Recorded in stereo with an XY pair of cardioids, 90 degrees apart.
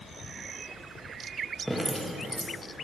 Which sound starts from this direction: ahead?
Dripping, at 1.7 s.